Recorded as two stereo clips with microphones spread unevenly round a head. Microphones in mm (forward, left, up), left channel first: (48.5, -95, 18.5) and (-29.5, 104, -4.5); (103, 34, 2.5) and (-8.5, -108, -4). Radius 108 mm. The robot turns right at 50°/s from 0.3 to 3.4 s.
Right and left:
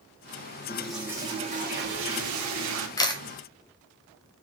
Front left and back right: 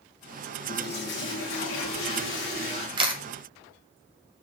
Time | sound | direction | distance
0.7 | a toilet flushing | 10° left | 1.1 m
3.0 | a camera shutter | 135° right | 0.8 m